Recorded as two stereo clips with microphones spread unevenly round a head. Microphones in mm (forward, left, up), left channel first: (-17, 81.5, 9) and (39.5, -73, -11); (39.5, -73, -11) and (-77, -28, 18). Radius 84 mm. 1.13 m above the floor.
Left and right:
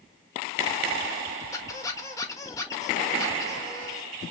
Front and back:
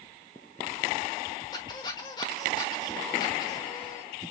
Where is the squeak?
50° left, 1.0 m.